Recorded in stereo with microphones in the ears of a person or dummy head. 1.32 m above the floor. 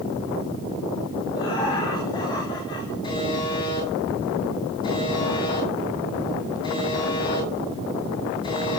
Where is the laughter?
25° left (ahead or behind), 4.5 m.